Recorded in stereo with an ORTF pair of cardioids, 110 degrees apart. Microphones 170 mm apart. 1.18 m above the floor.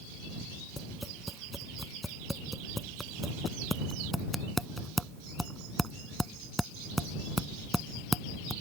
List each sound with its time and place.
0.8 s tapping: straight ahead